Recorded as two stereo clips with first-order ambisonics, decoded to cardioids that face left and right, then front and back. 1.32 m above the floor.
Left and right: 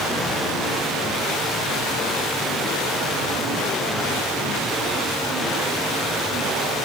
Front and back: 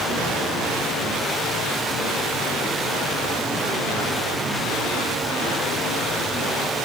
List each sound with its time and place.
Only background noise.